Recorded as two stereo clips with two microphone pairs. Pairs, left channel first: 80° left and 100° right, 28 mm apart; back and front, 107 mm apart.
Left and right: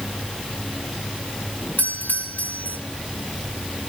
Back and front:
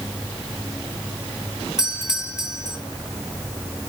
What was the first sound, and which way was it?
A doorbell, 85° left.